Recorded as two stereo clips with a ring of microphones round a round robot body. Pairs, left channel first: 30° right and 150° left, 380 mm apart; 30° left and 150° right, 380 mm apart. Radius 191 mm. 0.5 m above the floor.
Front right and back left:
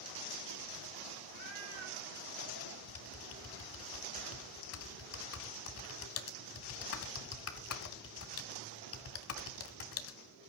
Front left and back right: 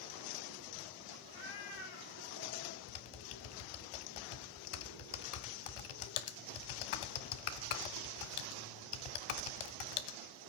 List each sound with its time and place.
1.3 s a cat meowing: 85° left, 9.5 m; by 2.8 s 90° left, 10 m
2.9 s typing on a keyboard: 25° left, 1.5 m